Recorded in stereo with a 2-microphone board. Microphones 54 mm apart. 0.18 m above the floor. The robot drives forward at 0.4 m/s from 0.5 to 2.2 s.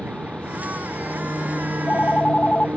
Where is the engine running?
25° right (ahead or behind).